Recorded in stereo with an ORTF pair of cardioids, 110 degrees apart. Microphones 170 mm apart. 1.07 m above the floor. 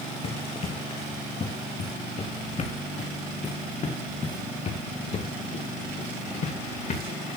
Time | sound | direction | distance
0.2 | running footsteps | 35° left | 3.5 m